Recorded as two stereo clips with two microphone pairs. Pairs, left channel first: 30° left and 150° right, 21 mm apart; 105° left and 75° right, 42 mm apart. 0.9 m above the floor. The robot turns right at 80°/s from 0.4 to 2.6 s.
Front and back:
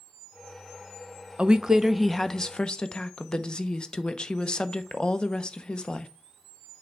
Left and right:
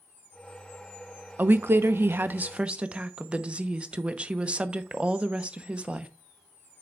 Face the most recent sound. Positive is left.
turn(degrees=-20)